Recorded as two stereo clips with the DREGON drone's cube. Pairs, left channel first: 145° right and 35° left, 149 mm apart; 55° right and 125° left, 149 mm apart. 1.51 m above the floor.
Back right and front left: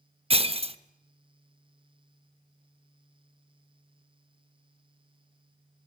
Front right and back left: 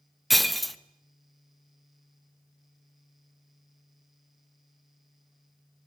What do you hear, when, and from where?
0.3 s breaking glass: 35° left, 0.9 m